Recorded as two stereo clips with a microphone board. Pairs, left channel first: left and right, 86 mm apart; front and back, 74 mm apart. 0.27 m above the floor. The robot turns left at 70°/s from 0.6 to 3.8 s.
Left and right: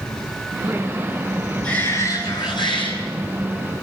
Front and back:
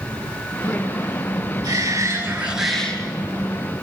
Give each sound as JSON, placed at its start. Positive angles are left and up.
{"t": 1.6, "sound": "a shout", "azimuth_deg": 165, "distance_m": 5.5}